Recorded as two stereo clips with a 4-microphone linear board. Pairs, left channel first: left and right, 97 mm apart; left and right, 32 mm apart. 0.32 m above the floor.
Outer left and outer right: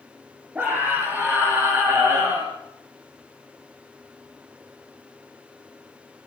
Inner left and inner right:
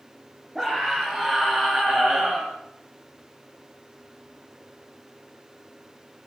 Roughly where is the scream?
Centre.